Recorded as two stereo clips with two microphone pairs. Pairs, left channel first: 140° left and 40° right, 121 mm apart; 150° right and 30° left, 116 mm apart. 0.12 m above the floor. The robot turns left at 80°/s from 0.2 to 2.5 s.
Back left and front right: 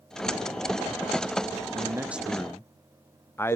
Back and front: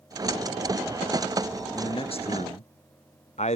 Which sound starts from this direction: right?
A man speaking, at 1.7 s.